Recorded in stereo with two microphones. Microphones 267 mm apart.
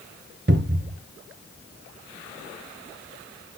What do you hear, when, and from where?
0.5 s a cupboard door: 40° right (ahead or behind), 0.9 m